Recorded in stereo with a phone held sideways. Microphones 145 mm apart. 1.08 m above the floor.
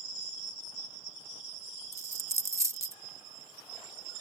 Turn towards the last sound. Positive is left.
turn(degrees=-20)  # may be behind; listen again after turning